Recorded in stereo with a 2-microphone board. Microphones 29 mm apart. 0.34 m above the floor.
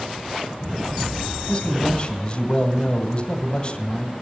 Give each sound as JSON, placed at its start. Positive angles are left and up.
{"t": 1.5, "sound": "a man speaking", "side_deg": 35, "distance_m": 2.0}